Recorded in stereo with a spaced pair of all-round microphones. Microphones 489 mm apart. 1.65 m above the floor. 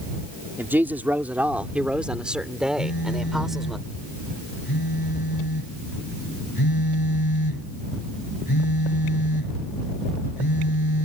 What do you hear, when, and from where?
0.6 s a woman speaking: 5° right (ahead or behind); by 3.8 s centre (ahead or behind)
2.8 s a phone buzzing: 45° left (ahead or behind)